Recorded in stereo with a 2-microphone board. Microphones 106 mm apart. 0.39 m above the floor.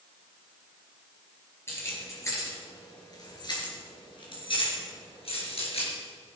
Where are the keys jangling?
25° left (ahead or behind), 4 m; by 5.9 s 70° left (ahead or behind), 4 m.